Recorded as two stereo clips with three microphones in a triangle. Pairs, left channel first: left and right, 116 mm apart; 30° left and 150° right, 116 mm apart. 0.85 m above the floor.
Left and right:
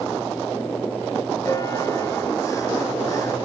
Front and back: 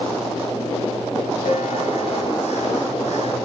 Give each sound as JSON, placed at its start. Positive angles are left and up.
{"t": 1.4, "sound": "a bell", "azimuth_deg": 25, "distance_m": 3.0}